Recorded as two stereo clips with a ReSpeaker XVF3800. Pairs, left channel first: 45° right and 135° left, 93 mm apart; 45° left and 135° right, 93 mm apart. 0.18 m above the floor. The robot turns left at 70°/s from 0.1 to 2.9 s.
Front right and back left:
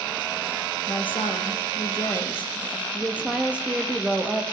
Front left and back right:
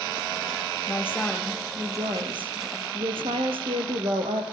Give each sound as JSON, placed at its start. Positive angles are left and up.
{"t": 0.9, "sound": "a woman speaking", "azimuth_deg": -10, "distance_m": 4.5}